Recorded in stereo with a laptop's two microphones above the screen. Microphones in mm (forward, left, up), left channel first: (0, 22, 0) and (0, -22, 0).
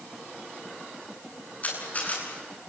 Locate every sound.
1.6 s a camera shutter: 35° left (ahead or behind), 8.5 m